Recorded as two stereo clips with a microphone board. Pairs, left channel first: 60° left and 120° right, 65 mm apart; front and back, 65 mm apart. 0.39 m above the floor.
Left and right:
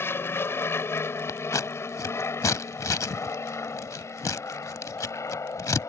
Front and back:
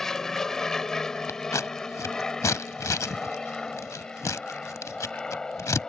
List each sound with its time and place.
0.0 s an aircraft: 75° left
1.3 s scissors: 30° left